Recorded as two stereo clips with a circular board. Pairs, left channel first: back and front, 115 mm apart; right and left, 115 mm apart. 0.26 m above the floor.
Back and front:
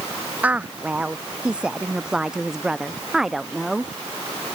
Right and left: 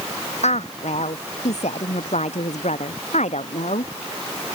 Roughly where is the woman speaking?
Right.